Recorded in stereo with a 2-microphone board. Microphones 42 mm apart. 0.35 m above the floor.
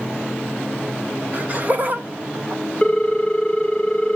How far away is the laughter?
About 1.3 m.